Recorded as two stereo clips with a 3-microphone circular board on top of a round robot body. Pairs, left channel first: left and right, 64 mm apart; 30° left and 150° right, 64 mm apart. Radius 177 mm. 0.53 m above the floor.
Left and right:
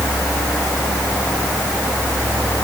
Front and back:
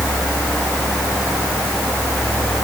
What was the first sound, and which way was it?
Only background noise.